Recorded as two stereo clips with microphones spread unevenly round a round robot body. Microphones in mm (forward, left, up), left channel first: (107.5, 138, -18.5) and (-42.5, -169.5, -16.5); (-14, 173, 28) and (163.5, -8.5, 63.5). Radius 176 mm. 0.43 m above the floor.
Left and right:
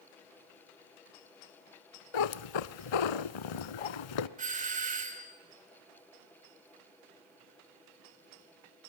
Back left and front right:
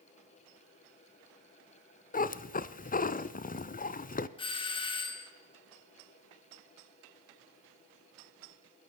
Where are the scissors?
I don't hear scissors.